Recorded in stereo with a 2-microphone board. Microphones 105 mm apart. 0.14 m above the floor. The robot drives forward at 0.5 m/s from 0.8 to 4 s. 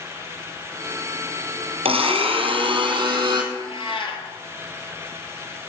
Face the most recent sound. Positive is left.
turn(degrees=60)  # may be behind; listen again after turning